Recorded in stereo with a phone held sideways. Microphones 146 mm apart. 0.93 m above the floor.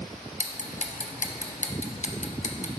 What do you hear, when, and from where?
0.4 s ticking: 55° left (ahead or behind), 0.6 m